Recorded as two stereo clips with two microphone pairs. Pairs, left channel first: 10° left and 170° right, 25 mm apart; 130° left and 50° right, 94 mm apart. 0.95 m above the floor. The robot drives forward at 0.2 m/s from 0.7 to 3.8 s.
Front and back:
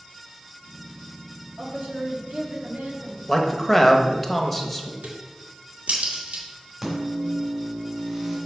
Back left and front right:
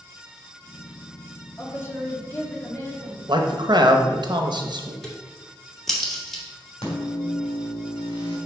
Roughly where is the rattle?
No rattle in this recording.